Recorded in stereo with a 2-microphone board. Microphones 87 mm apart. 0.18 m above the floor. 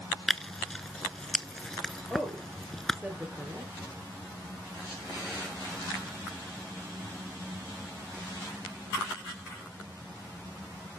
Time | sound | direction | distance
0.3 | tearing paper | 5° left (ahead or behind) | 0.5 m
2.1 | a woman speaking | 10° right (ahead or behind) | 4 m